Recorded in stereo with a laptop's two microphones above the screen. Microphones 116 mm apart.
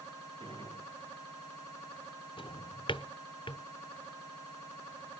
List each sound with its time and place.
0.4 s a gunshot: 45° right (ahead or behind), 6.5 m
2.4 s a drawer: 45° left (ahead or behind), 0.8 m